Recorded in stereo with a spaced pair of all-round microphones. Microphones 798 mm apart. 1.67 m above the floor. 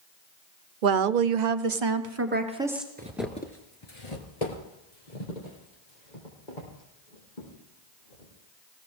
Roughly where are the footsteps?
Centre.